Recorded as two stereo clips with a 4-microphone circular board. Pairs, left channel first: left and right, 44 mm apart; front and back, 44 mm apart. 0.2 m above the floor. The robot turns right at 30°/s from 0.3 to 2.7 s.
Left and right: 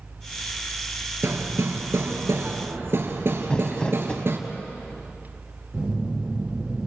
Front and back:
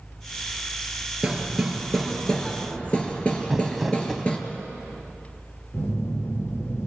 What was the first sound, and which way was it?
Hammering, 105° right.